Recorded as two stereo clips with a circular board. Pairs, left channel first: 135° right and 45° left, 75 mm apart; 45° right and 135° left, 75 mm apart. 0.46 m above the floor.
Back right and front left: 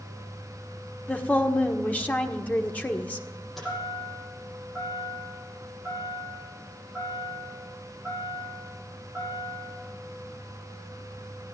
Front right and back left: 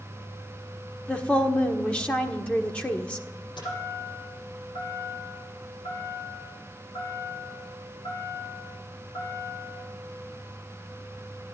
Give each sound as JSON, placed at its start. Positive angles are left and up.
{"t": 1.1, "sound": "a woman speaking", "azimuth_deg": -100, "distance_m": 1.3}
{"t": 3.6, "sound": "a chime", "azimuth_deg": -45, "distance_m": 8.5}